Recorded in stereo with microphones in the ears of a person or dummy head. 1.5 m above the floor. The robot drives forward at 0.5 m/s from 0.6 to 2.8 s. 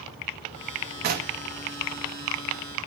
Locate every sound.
1.0 s knocking: 50° right (ahead or behind), 1.8 m; by 1.4 s 45° right (ahead or behind), 1.9 m